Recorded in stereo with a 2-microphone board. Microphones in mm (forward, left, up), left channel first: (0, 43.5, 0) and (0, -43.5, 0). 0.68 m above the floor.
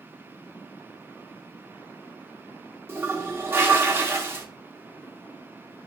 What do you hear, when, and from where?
2.9 s a toilet flushing: 25° right (ahead or behind), 0.7 m